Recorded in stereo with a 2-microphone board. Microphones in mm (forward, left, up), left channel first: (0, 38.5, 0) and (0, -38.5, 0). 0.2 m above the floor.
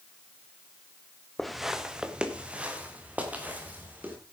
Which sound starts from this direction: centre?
Footsteps, at 1.4 s.